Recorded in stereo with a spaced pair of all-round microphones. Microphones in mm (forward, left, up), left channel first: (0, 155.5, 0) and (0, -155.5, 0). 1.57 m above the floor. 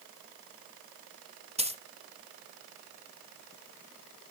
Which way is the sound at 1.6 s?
20° right (ahead or behind).